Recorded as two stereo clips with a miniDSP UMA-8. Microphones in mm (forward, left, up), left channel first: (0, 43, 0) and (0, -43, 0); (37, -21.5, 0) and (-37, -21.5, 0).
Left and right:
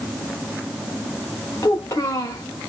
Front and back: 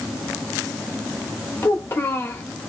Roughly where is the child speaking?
Ahead left.